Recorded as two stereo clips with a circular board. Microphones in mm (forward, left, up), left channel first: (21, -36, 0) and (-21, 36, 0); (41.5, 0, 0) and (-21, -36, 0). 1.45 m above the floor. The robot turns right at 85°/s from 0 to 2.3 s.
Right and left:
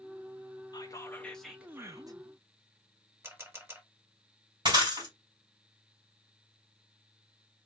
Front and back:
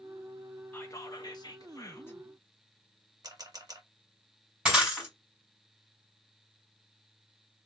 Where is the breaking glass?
130° left, 3 m.